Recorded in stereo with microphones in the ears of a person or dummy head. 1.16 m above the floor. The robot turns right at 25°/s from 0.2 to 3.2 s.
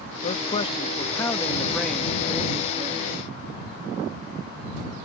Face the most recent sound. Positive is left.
turn(degrees=-145)